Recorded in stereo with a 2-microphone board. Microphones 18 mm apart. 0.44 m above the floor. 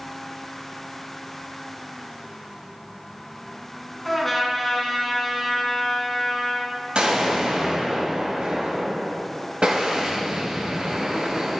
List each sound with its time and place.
4.0 s a trumpet: 5° left (ahead or behind), 1.6 m
7.0 s an explosion: 70° right (ahead or behind), 2.0 m